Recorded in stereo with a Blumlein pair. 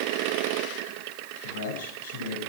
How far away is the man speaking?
About 7 m.